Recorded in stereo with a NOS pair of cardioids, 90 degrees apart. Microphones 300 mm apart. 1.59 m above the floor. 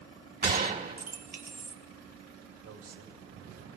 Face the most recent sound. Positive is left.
turn(degrees=-65)